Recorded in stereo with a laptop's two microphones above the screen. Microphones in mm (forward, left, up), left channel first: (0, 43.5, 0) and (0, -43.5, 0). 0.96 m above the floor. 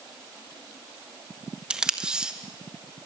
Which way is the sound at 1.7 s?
10° right (ahead or behind).